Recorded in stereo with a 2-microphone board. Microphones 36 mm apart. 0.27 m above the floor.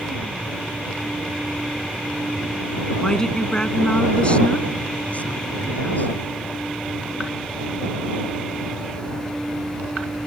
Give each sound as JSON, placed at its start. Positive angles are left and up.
{"t": 3.0, "sound": "a woman speaking", "side_deg": 15}